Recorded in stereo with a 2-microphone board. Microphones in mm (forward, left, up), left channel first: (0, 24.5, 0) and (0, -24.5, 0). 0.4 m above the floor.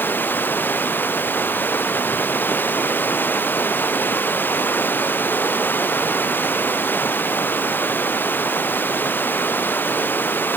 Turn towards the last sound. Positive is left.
turn(degrees=40)  # may be behind; listen again after turning